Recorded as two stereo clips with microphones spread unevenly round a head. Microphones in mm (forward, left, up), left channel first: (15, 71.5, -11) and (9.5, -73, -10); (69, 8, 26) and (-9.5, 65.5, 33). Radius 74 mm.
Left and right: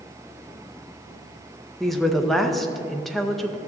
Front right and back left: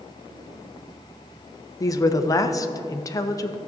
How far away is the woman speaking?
About 0.6 m.